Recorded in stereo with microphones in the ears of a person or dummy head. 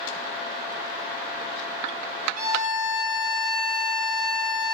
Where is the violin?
50° right (ahead or behind), 1.5 m.